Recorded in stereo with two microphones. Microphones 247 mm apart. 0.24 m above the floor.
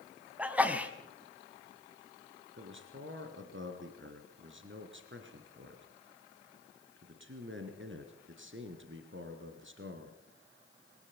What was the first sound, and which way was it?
A sneeze, 5° right (ahead or behind).